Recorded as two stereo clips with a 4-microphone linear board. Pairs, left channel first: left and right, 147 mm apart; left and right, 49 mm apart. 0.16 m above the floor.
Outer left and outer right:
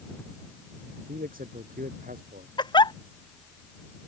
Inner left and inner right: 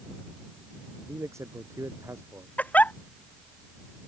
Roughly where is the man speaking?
Right.